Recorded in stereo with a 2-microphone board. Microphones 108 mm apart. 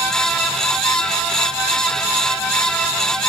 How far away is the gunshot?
No gunshot in this recording.